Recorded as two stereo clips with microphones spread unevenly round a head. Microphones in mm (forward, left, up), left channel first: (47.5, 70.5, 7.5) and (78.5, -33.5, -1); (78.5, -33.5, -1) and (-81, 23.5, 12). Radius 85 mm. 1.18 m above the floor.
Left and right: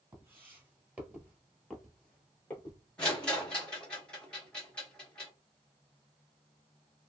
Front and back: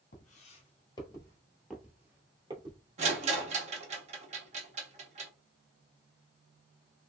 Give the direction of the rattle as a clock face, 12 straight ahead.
6 o'clock.